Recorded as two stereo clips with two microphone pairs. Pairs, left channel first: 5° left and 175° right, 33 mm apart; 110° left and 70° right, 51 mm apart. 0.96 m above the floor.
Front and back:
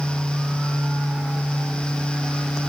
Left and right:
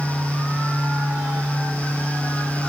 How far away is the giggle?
No giggle in this recording.